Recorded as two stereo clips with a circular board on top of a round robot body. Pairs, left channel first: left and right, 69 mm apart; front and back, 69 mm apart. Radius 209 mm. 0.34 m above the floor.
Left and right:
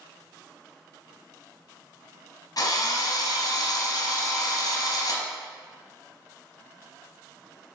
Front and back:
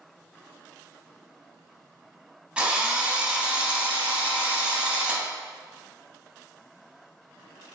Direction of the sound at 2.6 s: 105° left.